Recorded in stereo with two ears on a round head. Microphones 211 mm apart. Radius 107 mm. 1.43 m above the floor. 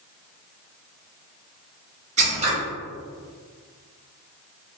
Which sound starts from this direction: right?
Scissors, at 2.2 s.